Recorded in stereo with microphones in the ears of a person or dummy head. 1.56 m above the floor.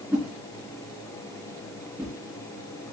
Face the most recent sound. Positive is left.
turn(degrees=-10)  # may be behind; listen again after turning